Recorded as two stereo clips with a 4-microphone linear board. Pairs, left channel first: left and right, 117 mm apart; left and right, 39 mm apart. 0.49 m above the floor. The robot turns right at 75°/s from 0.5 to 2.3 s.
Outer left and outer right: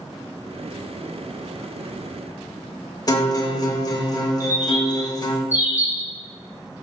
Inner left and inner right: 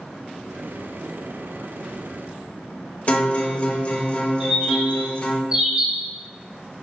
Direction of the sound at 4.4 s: 20° right (ahead or behind).